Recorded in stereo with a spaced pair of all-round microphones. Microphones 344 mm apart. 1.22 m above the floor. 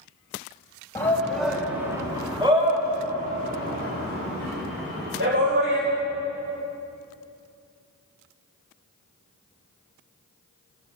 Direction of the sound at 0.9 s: 10° left (ahead or behind).